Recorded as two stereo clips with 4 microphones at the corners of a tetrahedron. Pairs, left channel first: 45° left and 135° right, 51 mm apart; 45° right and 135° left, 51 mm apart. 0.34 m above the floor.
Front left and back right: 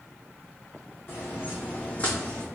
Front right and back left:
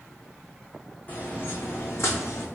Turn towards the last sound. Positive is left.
turn(degrees=-30)